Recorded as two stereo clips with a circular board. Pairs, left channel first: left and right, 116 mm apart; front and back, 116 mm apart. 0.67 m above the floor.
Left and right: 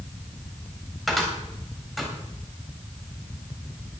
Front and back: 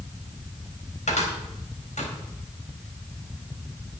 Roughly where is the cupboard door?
Ahead.